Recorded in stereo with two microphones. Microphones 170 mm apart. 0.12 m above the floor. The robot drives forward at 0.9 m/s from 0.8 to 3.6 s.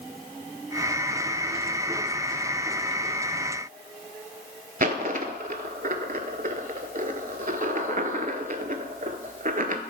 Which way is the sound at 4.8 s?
55° right (ahead or behind).